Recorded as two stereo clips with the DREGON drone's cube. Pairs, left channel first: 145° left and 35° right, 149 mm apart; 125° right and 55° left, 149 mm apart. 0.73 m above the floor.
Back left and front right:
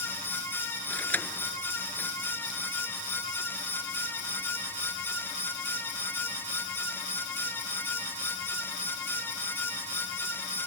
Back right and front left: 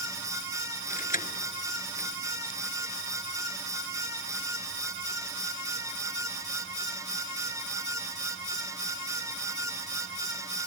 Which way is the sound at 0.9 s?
135° right.